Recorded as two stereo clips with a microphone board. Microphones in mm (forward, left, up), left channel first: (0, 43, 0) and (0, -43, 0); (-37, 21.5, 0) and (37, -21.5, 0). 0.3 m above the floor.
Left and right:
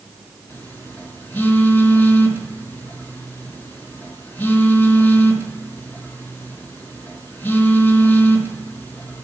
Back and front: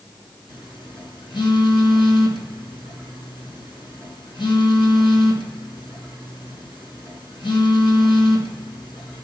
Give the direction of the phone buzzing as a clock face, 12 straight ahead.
7 o'clock.